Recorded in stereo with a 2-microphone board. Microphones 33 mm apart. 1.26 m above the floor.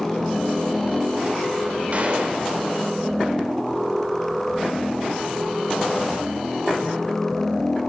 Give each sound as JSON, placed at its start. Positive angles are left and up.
{"t": 1.9, "sound": "a gunshot", "side_deg": -40, "distance_m": 5.5}